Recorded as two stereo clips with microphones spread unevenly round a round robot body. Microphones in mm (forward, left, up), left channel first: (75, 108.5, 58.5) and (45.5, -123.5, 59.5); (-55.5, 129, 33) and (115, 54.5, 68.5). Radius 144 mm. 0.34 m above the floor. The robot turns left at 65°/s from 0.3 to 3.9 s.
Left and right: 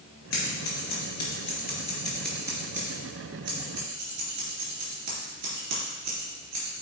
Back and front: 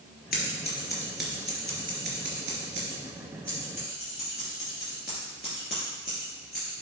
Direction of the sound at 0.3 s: 120° left.